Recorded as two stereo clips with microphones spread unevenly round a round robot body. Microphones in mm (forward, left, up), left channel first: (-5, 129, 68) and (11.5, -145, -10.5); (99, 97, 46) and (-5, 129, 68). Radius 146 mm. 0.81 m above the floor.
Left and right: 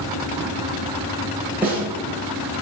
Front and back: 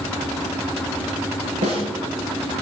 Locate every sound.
1.6 s a snare drum: 170° right, 7 m